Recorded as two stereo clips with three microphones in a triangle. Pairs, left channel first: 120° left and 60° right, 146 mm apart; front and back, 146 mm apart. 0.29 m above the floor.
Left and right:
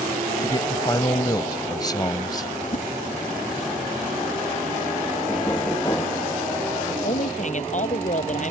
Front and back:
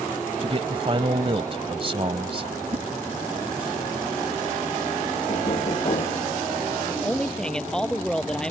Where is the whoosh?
140° left.